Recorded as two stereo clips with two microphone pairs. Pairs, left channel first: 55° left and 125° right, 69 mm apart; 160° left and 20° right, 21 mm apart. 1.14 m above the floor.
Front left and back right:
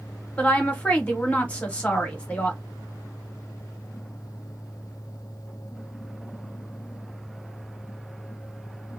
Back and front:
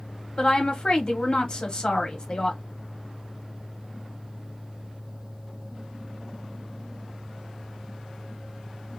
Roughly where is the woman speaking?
Behind left.